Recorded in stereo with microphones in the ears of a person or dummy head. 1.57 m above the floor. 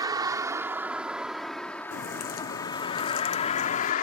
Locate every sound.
0.0 s a vehicle: 15° right (ahead or behind); by 4.0 s 55° left (ahead or behind)
1.9 s a crack: 55° left (ahead or behind)